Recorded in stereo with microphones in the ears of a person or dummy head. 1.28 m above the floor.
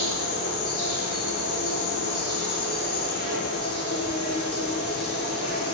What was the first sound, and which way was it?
An insect, 70° left (ahead or behind).